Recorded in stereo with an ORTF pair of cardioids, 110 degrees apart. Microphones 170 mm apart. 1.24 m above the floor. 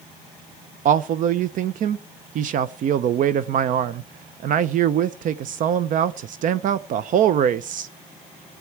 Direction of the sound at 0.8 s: 55° right.